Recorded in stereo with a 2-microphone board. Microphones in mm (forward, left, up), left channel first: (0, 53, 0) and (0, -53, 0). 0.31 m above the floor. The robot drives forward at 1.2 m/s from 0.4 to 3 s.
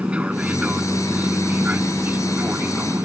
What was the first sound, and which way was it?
An aircraft, 10° right (ahead or behind).